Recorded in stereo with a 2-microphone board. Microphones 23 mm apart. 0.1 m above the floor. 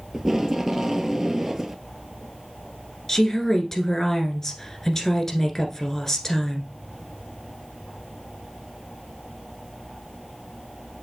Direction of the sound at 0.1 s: 20° right (ahead or behind).